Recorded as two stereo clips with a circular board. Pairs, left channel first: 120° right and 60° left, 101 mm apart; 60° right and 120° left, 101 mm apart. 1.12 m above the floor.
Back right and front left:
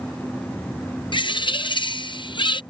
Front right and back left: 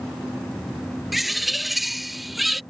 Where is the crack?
I don't hear a crack.